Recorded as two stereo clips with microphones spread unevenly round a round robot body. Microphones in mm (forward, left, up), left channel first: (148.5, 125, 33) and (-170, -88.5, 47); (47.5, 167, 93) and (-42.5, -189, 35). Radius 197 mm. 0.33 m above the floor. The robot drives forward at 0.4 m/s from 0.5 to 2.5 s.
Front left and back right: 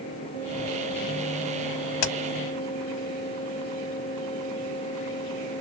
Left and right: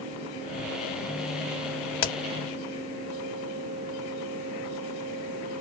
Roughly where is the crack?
Ahead left.